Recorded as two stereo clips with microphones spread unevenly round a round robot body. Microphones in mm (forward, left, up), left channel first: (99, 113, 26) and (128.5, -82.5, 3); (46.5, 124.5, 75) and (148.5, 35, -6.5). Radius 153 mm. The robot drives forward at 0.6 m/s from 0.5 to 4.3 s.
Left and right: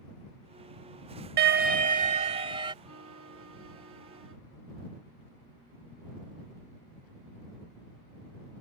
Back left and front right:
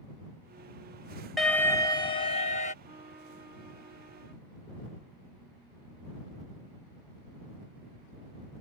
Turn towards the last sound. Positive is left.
turn(degrees=-130)